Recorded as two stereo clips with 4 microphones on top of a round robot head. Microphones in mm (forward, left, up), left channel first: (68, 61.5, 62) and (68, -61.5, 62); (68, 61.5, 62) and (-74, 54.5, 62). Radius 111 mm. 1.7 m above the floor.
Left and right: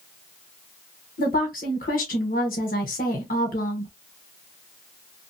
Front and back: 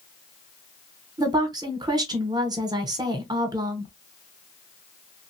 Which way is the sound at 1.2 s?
125° left.